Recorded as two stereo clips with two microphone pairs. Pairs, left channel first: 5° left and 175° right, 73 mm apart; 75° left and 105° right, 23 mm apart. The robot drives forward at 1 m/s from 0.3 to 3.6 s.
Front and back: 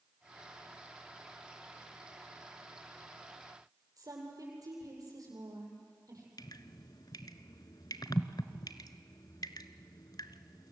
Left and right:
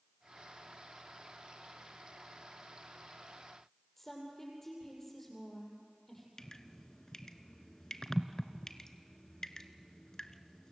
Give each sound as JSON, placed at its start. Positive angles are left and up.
{"t": 4.0, "sound": "a woman speaking", "azimuth_deg": 150, "distance_m": 8.0}
{"t": 6.4, "sound": "dripping", "azimuth_deg": 10, "distance_m": 0.9}